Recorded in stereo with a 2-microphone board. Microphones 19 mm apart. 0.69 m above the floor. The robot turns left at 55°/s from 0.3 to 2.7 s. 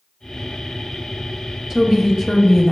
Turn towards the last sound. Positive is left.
turn(degrees=155)